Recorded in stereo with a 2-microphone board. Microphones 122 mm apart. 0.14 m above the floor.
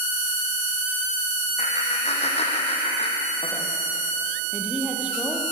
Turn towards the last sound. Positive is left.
turn(degrees=-10)  # may be behind; listen again after turning